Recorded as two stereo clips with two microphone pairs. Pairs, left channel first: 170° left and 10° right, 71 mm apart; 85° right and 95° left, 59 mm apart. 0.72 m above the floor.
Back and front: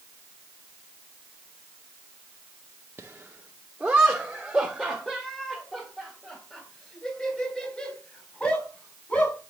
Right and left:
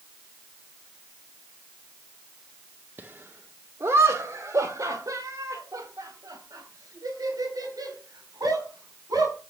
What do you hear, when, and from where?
3.0 s laughter: 50° left, 1.2 m; by 9.4 s 100° left, 5 m